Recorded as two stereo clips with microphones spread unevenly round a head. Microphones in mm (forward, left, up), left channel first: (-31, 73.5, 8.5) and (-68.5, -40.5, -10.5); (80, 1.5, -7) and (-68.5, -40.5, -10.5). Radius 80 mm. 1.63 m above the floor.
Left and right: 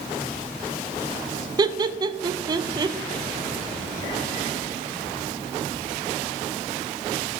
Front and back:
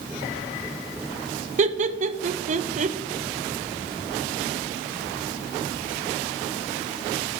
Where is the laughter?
165° right, 0.5 m.